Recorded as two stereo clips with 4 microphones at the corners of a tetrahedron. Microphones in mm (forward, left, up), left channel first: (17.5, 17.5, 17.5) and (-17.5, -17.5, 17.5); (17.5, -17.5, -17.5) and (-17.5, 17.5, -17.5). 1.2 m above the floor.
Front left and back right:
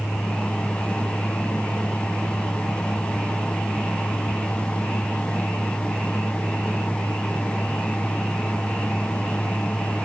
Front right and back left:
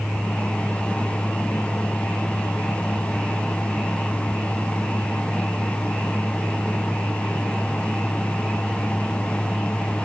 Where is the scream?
I don't hear a scream.